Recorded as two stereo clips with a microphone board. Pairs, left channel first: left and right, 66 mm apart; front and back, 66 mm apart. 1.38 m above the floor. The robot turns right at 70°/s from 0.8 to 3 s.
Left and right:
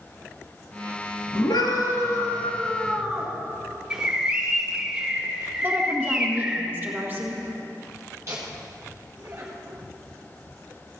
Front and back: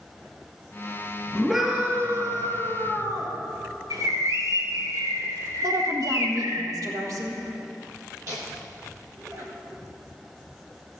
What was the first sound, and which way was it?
A scream, 80° left.